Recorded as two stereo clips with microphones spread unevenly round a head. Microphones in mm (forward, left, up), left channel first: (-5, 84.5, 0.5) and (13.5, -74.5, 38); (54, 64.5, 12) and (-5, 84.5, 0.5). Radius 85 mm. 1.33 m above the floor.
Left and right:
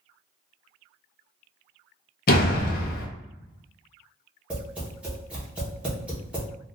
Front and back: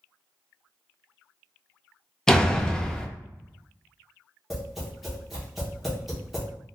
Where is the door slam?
60° left, 0.6 m.